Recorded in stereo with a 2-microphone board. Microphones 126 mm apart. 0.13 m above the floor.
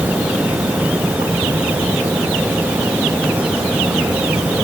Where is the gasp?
I don't hear a gasp.